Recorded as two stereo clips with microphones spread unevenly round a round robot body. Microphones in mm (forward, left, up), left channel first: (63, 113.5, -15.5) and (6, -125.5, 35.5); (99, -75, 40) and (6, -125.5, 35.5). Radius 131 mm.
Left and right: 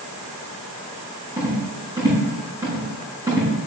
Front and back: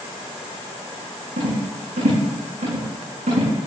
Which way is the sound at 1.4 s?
Straight behind.